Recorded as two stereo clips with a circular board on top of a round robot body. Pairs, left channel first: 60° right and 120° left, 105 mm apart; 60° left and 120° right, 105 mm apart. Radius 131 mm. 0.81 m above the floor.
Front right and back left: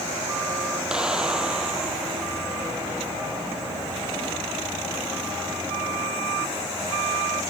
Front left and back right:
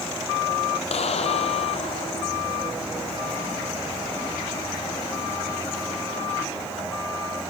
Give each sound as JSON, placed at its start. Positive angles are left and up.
{"t": 0.9, "sound": "a clap", "azimuth_deg": 35}